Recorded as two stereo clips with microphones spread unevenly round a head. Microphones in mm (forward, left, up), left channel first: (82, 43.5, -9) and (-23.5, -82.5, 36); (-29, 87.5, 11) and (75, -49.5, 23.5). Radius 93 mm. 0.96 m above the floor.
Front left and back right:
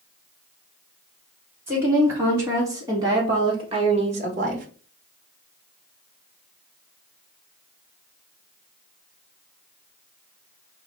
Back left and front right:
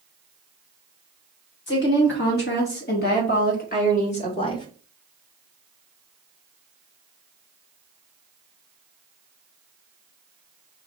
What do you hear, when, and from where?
1.7 s a woman speaking: 150° left, 2.5 m; by 4.7 s 175° right, 1.1 m